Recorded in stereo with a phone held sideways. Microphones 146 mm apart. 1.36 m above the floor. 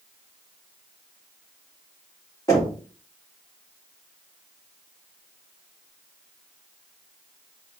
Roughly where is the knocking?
Left.